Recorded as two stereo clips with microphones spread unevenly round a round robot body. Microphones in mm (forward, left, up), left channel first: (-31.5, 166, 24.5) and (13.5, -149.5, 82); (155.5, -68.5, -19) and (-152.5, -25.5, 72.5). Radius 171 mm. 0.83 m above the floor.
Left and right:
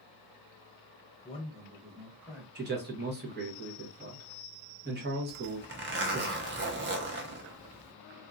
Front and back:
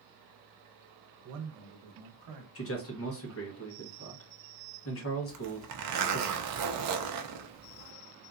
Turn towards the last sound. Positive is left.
turn(degrees=-140)